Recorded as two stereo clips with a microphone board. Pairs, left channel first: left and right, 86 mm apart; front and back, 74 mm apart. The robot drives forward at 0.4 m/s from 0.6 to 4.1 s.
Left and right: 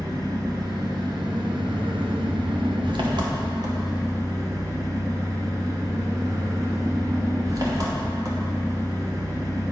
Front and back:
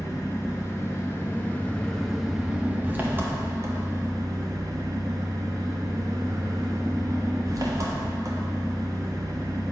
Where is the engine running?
50° right, 1.0 m; by 9.7 s 135° right, 1.1 m.